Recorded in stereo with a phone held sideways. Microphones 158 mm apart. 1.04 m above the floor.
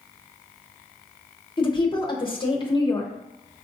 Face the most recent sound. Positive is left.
turn(degrees=30)  # may be behind; listen again after turning